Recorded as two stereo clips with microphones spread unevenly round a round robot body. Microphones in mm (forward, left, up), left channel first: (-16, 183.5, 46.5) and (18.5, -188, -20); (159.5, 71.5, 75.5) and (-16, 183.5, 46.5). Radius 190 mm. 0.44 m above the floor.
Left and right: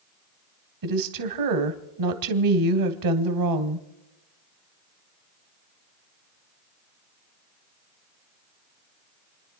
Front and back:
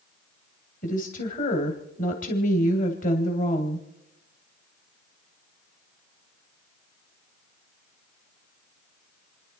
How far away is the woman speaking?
About 2.5 m.